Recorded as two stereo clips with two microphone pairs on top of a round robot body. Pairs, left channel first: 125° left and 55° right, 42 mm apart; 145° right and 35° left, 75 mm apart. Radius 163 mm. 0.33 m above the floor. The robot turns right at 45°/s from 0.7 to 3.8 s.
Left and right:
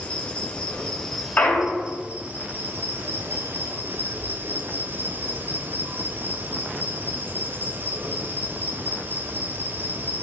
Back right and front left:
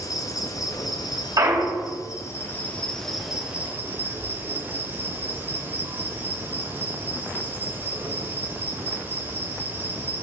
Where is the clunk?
70° left, 2.5 m; by 2.0 s 95° left, 2.5 m.